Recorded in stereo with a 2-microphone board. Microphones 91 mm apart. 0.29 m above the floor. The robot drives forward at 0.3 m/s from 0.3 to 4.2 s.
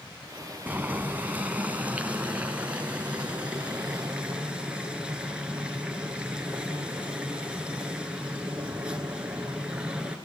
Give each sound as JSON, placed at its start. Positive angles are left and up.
{"t": 0.7, "sound": "boiling", "side_deg": -20, "distance_m": 1.2}